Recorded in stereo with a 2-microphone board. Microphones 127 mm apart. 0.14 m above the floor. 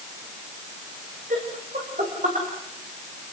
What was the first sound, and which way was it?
Laughter, 80° right.